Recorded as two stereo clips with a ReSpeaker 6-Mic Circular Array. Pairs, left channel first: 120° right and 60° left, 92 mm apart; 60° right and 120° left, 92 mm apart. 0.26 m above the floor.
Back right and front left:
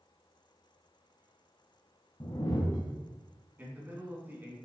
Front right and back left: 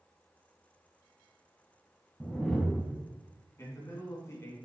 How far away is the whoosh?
About 1.2 m.